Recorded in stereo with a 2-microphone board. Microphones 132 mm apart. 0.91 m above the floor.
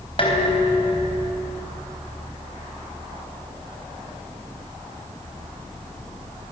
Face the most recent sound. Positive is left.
turn(degrees=45)  # may be behind; listen again after turning